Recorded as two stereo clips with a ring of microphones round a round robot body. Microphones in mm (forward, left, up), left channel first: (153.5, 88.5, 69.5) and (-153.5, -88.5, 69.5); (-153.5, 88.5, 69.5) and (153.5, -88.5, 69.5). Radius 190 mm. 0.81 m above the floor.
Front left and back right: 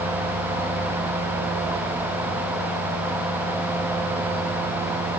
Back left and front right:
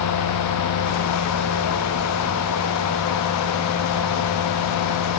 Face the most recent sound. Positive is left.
No sound to turn to.